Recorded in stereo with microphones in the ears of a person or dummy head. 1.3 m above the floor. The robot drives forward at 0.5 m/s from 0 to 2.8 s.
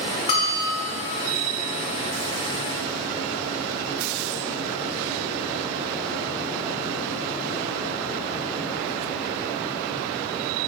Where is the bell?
30° left (ahead or behind), 1.6 m; by 0.9 s 25° left (ahead or behind), 1.9 m.